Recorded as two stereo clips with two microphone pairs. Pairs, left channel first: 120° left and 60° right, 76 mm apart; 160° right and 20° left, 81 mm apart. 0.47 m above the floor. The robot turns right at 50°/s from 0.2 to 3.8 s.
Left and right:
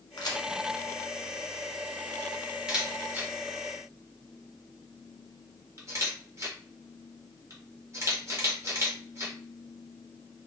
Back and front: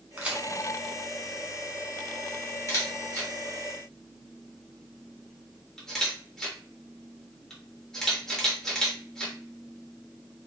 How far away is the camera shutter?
About 1.2 m.